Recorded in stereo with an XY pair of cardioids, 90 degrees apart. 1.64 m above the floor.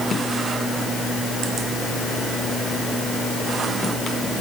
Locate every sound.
Only background noise.